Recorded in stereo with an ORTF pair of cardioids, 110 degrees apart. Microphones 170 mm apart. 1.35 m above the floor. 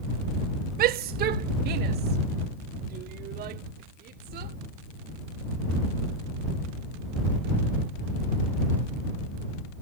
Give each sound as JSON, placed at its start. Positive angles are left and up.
{"t": 0.8, "sound": "a shout", "azimuth_deg": -65}